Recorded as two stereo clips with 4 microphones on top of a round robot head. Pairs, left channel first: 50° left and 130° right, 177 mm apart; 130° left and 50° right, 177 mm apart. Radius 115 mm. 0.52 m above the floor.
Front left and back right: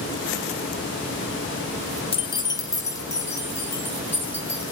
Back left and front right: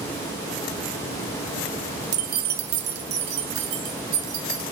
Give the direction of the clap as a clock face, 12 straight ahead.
No clap in this recording.